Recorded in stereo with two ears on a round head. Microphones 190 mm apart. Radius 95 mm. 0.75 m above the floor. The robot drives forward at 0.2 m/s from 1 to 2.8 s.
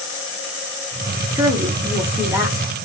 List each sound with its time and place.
1.4 s a woman speaking: 15° right (ahead or behind), 0.7 m; by 2.7 s 10° right (ahead or behind), 0.8 m